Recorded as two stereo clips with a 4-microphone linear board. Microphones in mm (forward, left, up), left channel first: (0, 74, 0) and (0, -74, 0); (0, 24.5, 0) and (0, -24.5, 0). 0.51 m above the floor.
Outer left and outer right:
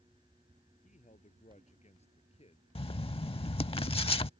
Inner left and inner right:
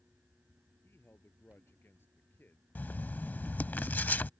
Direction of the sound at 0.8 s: 55° left (ahead or behind).